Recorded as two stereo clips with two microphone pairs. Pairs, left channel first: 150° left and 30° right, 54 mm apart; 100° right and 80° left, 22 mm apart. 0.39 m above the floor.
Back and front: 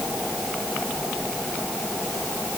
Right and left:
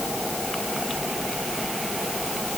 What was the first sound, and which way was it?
Only background noise.